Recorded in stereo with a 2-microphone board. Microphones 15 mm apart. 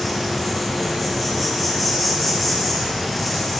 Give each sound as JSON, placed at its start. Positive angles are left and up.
{"t": 0.0, "sound": "an insect", "side_deg": 0, "distance_m": 2.5}